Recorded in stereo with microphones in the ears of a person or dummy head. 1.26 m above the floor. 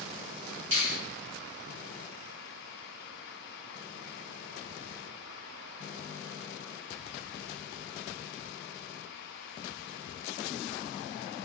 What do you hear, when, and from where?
0.7 s a finger snap: 65° right (ahead or behind), 1.2 m